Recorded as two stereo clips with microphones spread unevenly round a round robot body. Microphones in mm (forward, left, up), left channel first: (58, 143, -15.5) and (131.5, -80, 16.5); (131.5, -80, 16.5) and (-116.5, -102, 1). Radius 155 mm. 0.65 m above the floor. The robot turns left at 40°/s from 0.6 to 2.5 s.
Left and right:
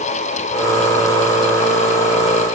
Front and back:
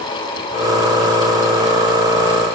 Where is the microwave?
No microwave in this recording.